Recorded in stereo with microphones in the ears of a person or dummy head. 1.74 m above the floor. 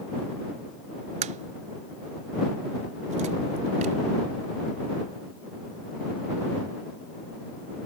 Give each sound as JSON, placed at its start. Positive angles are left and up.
{"t": 1.2, "sound": "a crack", "side_deg": -35}